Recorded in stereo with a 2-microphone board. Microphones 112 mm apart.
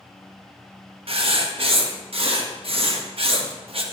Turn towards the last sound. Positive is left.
turn(degrees=-60)  # may be behind; listen again after turning